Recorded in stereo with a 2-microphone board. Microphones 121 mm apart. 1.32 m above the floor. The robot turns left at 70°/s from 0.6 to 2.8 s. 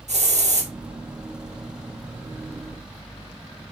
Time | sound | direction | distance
0.1 | a hiss | 70° right (ahead or behind) | 2 m